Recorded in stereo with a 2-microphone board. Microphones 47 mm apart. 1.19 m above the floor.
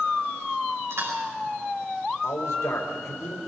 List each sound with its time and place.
0.9 s chewing: 70° right (ahead or behind), 6 m
2.2 s a man speaking: 90° left, 4 m